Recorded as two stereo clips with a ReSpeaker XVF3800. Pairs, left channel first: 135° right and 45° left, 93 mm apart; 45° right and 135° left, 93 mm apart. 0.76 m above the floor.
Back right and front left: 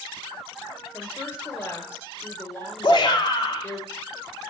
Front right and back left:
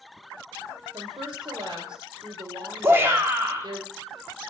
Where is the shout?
165° right, 1.7 m.